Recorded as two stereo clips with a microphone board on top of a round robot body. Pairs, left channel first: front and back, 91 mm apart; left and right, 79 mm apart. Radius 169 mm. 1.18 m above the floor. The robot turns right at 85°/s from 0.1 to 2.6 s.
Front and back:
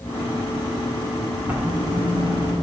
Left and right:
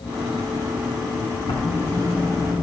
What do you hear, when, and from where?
1.5 s writing: 110° left, 2.5 m; by 2.6 s 160° right, 2.5 m